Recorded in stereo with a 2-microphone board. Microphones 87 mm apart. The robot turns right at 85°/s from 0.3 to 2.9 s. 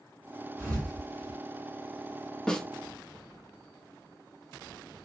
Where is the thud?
25° right (ahead or behind), 2.5 m; by 1.4 s 80° right, 2.5 m.